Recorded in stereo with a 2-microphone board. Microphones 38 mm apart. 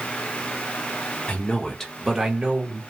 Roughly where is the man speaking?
Left.